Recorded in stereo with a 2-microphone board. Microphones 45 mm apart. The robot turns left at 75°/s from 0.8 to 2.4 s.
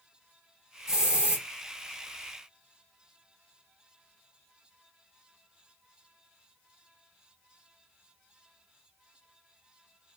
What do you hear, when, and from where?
0.9 s a hiss: 25° right, 0.8 m; by 1.4 s 65° right, 0.8 m